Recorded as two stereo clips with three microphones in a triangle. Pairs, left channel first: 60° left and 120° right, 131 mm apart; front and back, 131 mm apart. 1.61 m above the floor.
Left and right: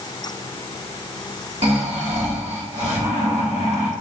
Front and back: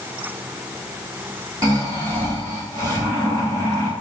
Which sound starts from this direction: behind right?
Snoring, at 1.6 s.